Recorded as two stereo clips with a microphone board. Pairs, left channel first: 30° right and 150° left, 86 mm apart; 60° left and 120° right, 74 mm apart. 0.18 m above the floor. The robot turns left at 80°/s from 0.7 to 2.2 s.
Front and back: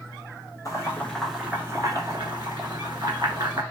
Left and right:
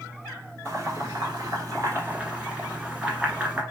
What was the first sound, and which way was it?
Boiling, 70° right.